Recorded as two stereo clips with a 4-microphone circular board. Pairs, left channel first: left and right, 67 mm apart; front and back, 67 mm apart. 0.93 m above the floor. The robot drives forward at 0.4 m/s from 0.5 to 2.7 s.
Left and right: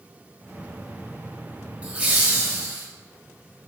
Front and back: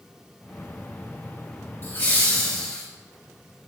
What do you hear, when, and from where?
1.8 s laughter: 35° right, 1.2 m; by 2.9 s 55° right, 1.0 m